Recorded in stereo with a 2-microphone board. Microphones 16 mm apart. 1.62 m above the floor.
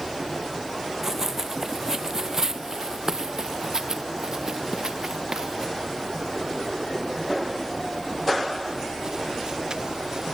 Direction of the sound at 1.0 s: 20° right (ahead or behind).